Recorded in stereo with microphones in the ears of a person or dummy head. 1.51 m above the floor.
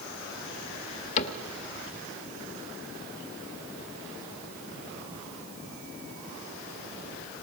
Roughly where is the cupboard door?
Left.